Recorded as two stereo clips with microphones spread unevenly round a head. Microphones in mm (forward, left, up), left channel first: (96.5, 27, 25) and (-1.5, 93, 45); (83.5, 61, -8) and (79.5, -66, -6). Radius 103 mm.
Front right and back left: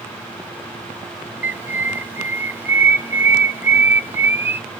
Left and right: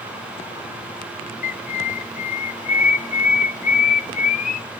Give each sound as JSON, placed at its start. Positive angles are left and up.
{"t": 1.4, "sound": "a bird", "azimuth_deg": 75, "distance_m": 0.7}